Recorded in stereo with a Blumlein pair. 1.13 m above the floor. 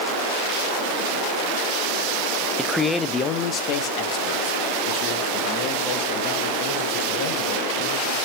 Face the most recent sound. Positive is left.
turn(degrees=50)